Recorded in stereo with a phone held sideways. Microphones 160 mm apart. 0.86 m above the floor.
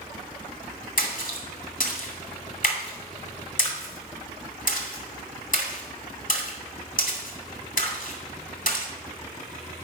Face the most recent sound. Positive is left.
turn(degrees=60)  # may be behind; listen again after turning